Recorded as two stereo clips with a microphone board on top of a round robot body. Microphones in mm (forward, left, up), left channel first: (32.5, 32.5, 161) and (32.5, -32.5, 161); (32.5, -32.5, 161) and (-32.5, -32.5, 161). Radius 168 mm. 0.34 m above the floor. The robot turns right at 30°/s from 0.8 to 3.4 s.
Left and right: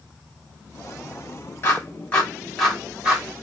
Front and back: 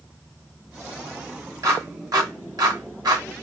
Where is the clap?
145° left, 3 m; by 3.2 s 165° right, 3 m.